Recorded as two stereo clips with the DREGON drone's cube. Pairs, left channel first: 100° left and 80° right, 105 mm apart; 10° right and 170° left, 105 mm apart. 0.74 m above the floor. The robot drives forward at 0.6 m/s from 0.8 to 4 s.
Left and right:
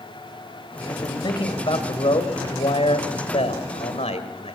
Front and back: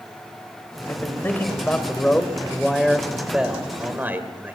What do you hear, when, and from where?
0.9 s a man speaking: 55° left, 3 m; by 4.5 s 100° left, 2.5 m